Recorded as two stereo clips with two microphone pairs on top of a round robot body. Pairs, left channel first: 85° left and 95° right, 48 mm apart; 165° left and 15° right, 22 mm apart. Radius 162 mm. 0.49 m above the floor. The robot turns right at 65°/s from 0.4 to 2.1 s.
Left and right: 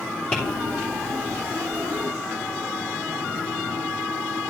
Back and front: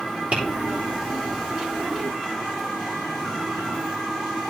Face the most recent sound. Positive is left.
turn(degrees=120)